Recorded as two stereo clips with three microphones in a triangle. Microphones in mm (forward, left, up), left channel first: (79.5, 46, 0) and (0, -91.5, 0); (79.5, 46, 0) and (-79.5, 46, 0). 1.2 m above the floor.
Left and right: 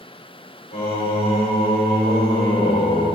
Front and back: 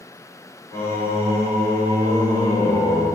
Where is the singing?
70° left, 4 m.